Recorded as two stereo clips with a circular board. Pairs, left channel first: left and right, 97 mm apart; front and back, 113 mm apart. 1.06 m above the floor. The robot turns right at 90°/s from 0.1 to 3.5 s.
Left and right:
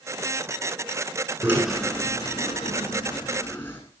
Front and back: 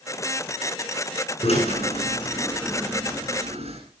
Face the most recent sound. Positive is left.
turn(degrees=155)